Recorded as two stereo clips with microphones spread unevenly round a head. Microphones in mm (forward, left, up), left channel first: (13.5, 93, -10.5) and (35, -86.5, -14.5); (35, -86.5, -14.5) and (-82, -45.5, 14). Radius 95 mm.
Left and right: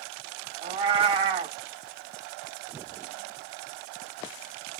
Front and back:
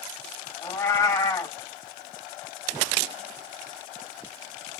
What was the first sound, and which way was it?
A cat meowing, 75° right.